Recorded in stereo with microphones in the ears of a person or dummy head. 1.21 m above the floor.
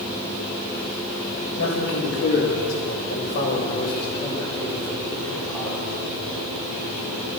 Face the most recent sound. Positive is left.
turn(degrees=10)  # may be behind; listen again after turning